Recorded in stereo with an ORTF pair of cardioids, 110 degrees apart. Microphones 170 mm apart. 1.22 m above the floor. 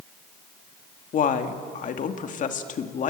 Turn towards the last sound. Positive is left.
turn(degrees=50)